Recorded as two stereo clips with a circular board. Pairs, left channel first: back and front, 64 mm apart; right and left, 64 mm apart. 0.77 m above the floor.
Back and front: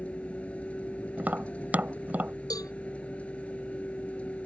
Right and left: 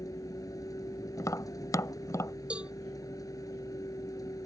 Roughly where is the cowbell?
Behind.